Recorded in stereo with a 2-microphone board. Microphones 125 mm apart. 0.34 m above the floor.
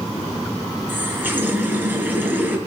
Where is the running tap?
15° right (ahead or behind), 3 m.